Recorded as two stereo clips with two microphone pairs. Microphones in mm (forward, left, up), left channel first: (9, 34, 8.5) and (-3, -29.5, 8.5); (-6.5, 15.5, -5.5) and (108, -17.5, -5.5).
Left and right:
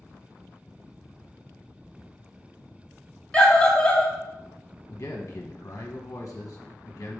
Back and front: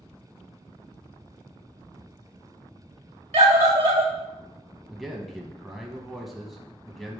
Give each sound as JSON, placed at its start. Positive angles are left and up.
{"t": 3.3, "sound": "a scream", "azimuth_deg": 5, "distance_m": 1.8}
{"t": 4.9, "sound": "a man speaking", "azimuth_deg": 65, "distance_m": 0.9}